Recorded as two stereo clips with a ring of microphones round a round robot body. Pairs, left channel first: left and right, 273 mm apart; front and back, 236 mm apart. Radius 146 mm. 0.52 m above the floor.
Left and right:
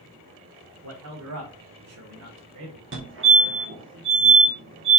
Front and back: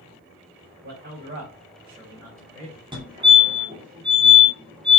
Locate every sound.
0.8 s a man speaking: 125° right, 3 m; by 2.8 s 95° right, 2.5 m
2.9 s a fire alarm: 115° right, 2.5 m